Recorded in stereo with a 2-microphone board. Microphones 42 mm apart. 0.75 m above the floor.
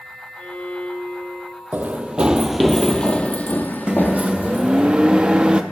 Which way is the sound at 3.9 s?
25° right (ahead or behind).